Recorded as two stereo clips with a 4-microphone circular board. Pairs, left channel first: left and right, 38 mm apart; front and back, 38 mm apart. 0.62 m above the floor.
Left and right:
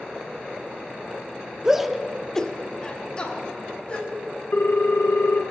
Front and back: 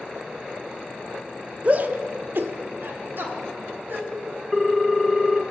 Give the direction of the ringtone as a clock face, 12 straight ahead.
9 o'clock.